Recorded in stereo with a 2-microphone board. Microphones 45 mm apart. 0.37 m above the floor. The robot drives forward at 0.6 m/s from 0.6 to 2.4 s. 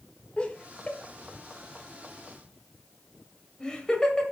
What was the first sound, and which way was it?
Laughter, 25° left (ahead or behind).